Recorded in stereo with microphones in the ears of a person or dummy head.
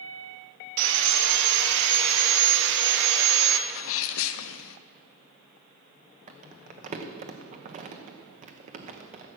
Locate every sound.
0.8 s sawing: 70° right (ahead or behind), 1.3 m
3.7 s a sneeze: 75° left (ahead or behind), 0.7 m
6.3 s crumpling: 35° right (ahead or behind), 1.1 m